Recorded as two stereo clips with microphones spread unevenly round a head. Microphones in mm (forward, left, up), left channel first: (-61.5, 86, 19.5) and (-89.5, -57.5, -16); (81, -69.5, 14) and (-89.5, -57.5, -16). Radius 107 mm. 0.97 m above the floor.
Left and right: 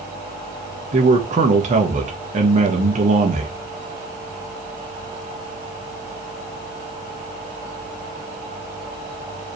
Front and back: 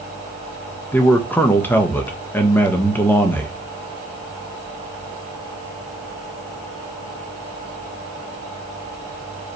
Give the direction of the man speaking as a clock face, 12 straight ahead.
3 o'clock.